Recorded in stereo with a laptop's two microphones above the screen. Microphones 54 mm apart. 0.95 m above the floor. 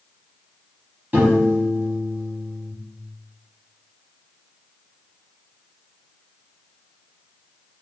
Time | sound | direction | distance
1.1 | a piano | 35° right (ahead or behind) | 1.0 m